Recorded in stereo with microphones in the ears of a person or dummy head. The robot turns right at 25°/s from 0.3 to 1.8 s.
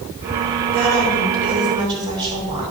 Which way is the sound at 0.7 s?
60° right (ahead or behind).